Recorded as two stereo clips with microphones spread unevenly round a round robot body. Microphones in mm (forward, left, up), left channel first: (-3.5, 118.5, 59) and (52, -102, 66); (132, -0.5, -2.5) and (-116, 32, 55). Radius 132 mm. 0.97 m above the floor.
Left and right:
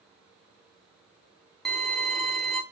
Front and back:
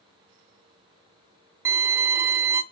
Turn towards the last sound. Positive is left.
turn(degrees=-165)